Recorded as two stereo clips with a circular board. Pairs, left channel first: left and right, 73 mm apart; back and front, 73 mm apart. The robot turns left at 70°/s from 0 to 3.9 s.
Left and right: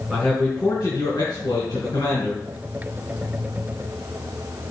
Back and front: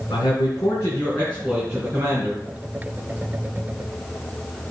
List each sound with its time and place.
0.1 s a man speaking: 170° right, 4 m; by 2.4 s 30° left, 4 m